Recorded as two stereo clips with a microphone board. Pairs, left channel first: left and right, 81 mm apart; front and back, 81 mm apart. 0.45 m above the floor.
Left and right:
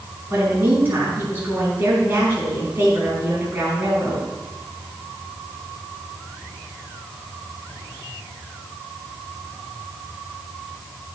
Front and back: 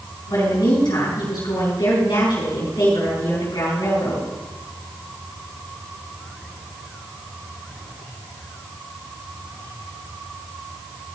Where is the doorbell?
I don't hear a doorbell.